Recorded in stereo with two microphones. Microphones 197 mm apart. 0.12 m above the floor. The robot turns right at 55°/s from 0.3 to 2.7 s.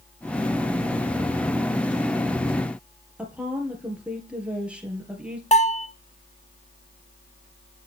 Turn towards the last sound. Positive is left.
turn(degrees=35)  # may be behind; listen again after turning